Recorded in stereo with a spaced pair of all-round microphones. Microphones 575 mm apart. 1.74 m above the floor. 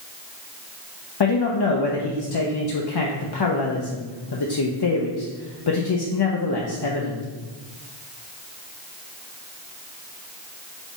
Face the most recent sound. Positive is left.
turn(degrees=45)  # may be behind; listen again after turning